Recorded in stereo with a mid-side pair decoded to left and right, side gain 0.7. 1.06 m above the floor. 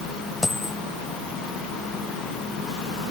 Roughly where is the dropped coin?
Ahead.